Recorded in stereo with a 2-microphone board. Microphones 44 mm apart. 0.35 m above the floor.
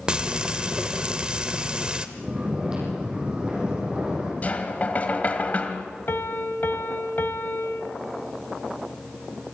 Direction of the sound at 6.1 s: 60° left (ahead or behind).